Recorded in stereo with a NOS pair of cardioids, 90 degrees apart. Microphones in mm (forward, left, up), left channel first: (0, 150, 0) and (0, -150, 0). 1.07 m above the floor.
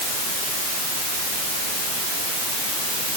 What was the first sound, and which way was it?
Only background noise.